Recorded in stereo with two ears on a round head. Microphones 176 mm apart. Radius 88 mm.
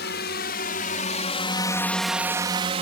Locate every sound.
0.0 s a drone: 60° left (ahead or behind); by 2.8 s 35° right (ahead or behind)